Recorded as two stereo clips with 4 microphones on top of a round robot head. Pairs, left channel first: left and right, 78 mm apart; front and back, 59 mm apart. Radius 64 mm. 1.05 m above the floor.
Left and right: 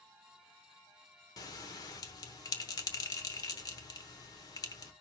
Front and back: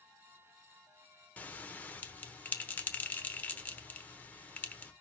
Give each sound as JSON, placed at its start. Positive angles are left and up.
{"t": 1.4, "sound": "a bell", "azimuth_deg": 60, "distance_m": 0.9}